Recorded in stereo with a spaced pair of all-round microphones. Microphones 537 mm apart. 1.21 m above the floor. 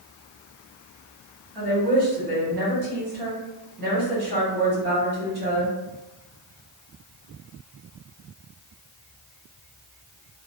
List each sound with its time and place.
1.6 s a woman speaking: 45° right (ahead or behind), 1.6 m